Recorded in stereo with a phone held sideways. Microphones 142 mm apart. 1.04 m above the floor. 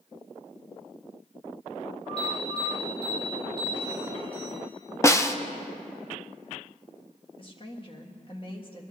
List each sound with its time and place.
2.2 s an alarm: 45° left (ahead or behind), 6 m
5.0 s a snare drum: 20° left (ahead or behind), 0.6 m
7.4 s a woman speaking: 40° left (ahead or behind), 1.7 m